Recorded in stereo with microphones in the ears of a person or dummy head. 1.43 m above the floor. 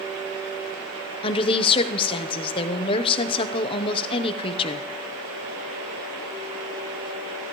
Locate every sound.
1.2 s a woman speaking: 30° left (ahead or behind), 0.8 m